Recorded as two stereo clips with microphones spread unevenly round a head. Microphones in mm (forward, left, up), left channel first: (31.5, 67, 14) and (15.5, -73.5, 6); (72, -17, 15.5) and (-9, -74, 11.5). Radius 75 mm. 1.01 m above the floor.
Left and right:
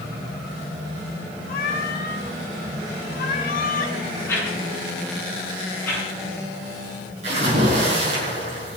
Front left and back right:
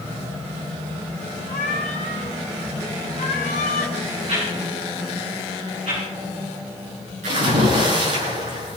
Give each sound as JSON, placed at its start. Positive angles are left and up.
{"t": 1.5, "sound": "a cat meowing", "azimuth_deg": 70, "distance_m": 3.0}
{"t": 4.3, "sound": "a whoosh", "azimuth_deg": 160, "distance_m": 9.0}
{"t": 7.2, "sound": "a splash", "azimuth_deg": -150, "distance_m": 7.5}